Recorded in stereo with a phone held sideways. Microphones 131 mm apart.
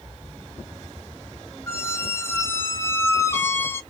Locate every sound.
1.7 s a squeak: 20° left (ahead or behind), 0.8 m